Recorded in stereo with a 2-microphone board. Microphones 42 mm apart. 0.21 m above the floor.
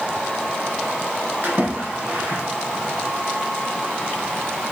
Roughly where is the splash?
Right.